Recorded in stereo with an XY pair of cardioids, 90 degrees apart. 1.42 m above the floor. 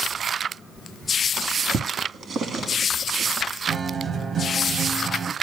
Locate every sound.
1.4 s a drawer: 65° right, 1.6 m
3.7 s a guitar: 55° right, 1.2 m